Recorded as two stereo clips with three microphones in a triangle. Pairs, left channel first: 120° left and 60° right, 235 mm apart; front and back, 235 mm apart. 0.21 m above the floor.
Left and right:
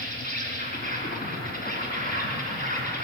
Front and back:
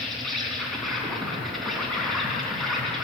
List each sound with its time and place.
0.0 s an insect: 90° left, 3 m